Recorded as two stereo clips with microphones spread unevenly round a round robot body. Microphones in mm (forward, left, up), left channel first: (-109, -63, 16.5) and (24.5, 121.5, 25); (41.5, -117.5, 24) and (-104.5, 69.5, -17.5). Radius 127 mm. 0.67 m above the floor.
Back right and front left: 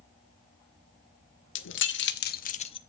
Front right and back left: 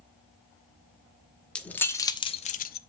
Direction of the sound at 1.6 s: 145° right.